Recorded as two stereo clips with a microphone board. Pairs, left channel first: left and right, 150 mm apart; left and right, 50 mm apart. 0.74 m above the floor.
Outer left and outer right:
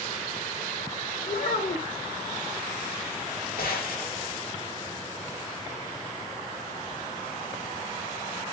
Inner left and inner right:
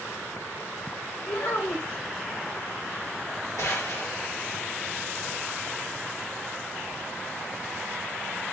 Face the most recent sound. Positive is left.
turn(degrees=80)